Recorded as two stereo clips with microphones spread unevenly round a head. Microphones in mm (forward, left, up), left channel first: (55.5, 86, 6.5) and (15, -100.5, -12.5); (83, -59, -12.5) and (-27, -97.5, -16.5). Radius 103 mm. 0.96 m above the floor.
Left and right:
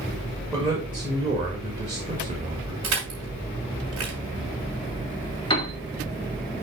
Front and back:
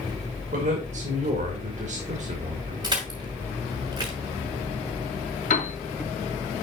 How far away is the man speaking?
About 1.9 m.